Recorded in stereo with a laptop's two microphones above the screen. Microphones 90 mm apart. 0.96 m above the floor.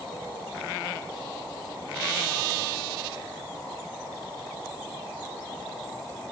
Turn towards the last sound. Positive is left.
No sound to turn to.